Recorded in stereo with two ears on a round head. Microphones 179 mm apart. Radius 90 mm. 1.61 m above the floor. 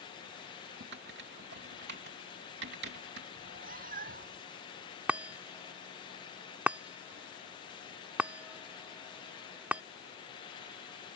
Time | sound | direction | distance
0.8 | typing on a keyboard | 60° right (ahead or behind) | ?
3.4 | a cat meowing | 45° right (ahead or behind) | ?
5.1 | a chime | 5° right (ahead or behind) | ?